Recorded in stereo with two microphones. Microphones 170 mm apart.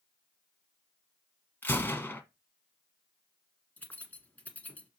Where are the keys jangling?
10° left (ahead or behind), 1.2 m.